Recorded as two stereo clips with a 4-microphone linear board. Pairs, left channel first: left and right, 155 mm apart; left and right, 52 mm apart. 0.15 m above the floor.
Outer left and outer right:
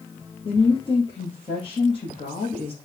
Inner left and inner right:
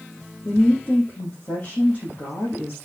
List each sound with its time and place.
0.5 s a woman speaking: 35° left (ahead or behind), 4 m